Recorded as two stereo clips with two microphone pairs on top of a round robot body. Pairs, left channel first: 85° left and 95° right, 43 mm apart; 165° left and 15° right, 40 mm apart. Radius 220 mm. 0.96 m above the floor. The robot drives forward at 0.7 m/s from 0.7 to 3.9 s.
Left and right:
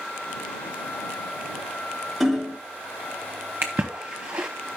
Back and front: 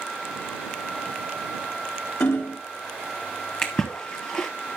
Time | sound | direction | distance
2.2 | hammering | 175° left | 1.1 m
3.6 | a splash | 140° right | 0.5 m